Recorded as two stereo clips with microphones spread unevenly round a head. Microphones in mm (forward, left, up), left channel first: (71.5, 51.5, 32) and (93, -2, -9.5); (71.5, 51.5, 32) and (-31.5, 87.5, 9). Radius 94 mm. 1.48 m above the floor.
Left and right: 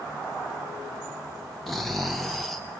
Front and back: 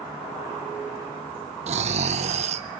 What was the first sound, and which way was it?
Snoring, 160° left.